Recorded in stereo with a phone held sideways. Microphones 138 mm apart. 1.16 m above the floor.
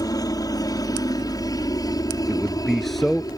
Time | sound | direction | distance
0.0 | a helicopter | 25° left (ahead or behind) | ?
2.3 | a man speaking | centre (ahead or behind) | ?